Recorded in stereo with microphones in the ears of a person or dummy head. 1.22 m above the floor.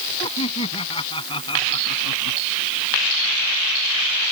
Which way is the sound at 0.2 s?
30° left (ahead or behind).